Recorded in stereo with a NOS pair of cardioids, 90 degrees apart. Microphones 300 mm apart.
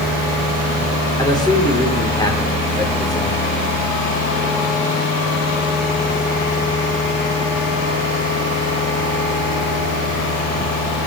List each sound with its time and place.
1.2 s a man speaking: 15° left, 6 m